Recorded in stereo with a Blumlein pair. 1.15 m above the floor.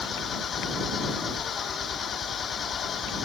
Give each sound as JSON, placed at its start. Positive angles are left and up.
{"t": 0.0, "sound": "an engine running", "azimuth_deg": 20}